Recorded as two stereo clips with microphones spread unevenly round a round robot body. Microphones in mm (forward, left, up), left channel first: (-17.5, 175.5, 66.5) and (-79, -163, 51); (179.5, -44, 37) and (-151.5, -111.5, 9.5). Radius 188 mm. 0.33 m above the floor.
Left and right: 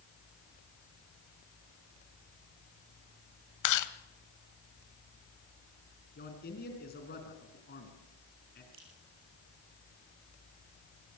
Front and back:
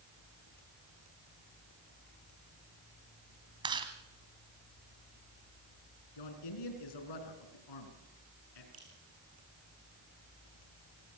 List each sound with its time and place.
3.6 s chewing: 115° left, 1.2 m
6.2 s a man speaking: 15° left, 4 m
8.7 s dripping: 120° right, 5 m